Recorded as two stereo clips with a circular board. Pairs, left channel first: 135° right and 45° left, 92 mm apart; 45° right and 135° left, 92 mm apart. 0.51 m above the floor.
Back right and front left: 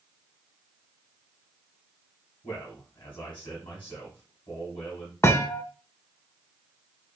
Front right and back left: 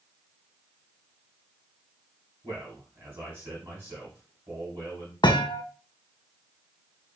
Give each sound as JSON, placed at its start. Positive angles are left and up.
{"t": 2.4, "sound": "a man speaking", "azimuth_deg": -165, "distance_m": 3.0}
{"t": 5.2, "sound": "a thud", "azimuth_deg": -75, "distance_m": 0.6}